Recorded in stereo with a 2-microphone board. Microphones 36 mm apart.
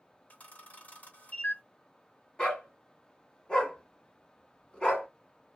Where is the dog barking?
25° left (ahead or behind), 1.0 m.